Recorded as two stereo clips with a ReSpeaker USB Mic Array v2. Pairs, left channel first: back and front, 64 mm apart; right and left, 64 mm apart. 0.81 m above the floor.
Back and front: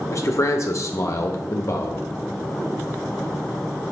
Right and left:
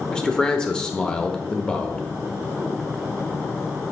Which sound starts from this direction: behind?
A man speaking, at 0.1 s.